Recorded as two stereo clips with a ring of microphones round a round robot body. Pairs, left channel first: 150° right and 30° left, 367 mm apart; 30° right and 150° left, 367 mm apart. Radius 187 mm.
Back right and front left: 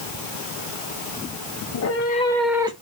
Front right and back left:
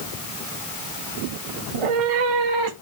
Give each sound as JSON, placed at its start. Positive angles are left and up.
{"t": 1.7, "sound": "a cat meowing", "azimuth_deg": 165, "distance_m": 1.0}